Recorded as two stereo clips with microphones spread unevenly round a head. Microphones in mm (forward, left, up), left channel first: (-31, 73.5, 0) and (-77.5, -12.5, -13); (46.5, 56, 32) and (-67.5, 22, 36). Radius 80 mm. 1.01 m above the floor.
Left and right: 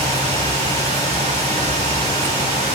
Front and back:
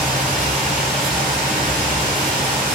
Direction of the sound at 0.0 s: 105° right.